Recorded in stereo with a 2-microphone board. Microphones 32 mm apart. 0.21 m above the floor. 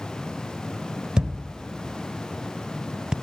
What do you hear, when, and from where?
1.2 s a thud: 25° right (ahead or behind), 0.7 m